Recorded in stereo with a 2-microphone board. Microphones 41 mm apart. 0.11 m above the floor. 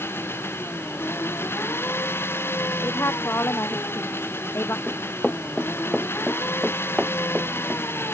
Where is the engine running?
75° left (ahead or behind).